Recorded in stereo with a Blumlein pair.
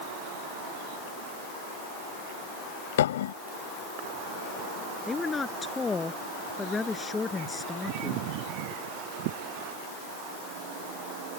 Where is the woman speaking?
15° left.